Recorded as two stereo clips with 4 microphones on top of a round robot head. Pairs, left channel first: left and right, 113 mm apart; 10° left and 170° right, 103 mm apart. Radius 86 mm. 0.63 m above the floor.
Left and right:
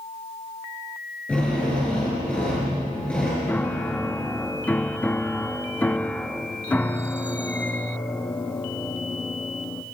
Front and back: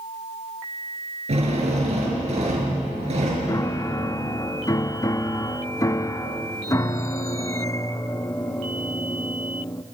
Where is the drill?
170° left, 6 m.